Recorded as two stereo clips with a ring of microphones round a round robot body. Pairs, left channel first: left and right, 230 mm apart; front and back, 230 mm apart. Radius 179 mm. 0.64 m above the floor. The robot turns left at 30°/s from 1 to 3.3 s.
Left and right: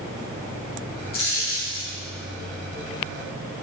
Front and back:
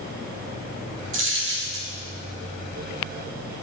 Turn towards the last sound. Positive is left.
turn(degrees=90)